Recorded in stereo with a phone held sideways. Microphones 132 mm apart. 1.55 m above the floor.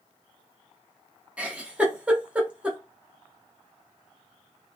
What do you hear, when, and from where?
1.4 s a giggle: 10° right (ahead or behind), 0.6 m